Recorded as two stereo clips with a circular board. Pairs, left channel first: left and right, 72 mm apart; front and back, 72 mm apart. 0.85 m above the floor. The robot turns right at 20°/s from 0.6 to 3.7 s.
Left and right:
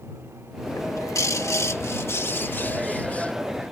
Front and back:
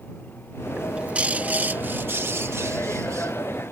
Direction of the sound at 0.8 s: 105° left.